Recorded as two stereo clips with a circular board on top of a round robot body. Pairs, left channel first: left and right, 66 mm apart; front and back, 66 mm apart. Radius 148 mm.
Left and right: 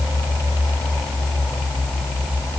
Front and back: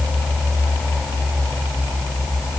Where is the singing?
No singing in this recording.